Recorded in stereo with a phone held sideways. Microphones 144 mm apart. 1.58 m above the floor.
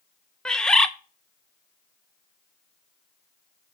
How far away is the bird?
About 0.7 m.